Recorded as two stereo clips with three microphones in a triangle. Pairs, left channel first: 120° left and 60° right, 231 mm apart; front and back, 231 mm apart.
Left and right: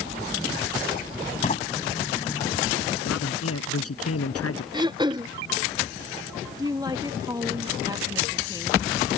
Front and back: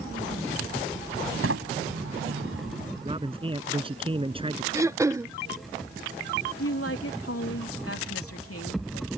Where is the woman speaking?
15° left.